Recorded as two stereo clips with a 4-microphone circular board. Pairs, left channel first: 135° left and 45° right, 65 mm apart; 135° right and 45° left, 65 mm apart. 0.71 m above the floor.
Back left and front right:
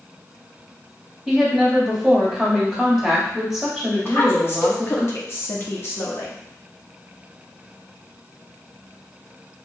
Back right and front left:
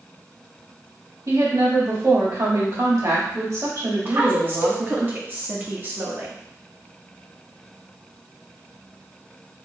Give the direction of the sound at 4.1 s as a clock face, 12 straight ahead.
9 o'clock.